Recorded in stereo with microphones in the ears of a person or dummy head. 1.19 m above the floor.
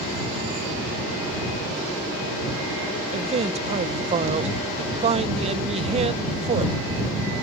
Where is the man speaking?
35° right (ahead or behind).